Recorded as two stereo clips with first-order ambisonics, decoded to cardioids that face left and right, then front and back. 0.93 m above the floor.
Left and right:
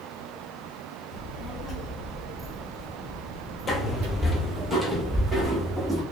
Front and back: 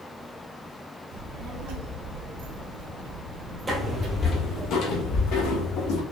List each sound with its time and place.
1.1 s a child speaking: 150° left, 1.4 m; by 4.7 s 105° right, 1.4 m
3.7 s footsteps: 125° left, 0.9 m; by 6.0 s 5° right, 2 m